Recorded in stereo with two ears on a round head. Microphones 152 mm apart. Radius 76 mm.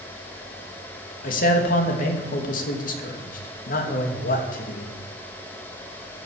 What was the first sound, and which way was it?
A man speaking, 55° left (ahead or behind).